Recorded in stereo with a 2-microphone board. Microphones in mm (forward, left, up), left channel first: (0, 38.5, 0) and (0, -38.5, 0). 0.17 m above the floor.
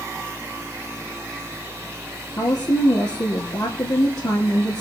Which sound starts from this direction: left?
A woman speaking, at 2.4 s.